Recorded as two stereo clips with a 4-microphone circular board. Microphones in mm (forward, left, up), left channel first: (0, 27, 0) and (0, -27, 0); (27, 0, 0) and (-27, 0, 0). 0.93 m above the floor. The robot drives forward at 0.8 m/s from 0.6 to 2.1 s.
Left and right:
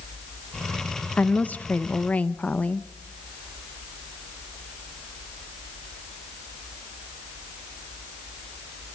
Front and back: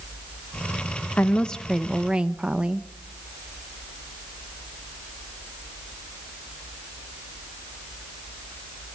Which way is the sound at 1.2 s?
40° left.